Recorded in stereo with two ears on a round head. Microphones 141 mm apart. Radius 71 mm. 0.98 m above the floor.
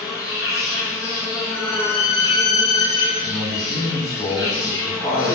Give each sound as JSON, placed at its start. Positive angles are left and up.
{"t": 0.0, "sound": "an insect", "side_deg": 25, "distance_m": 0.9}
{"t": 1.5, "sound": "a violin", "side_deg": 25, "distance_m": 1.4}
{"t": 3.2, "sound": "a man speaking", "side_deg": 30, "distance_m": 1.5}